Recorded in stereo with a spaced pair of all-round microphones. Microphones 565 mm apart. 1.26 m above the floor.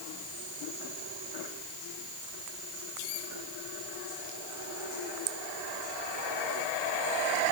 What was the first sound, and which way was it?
Only background noise.